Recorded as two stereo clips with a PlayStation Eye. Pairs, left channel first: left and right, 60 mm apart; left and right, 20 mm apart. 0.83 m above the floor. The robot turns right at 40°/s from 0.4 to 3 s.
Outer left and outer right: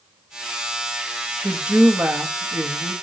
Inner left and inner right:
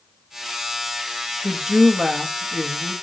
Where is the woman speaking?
165° right, 0.7 m; by 2.9 s 105° right, 0.7 m.